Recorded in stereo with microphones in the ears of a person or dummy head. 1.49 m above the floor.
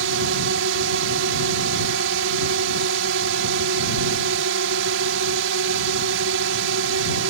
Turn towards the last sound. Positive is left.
turn(degrees=-70)  # may be behind; listen again after turning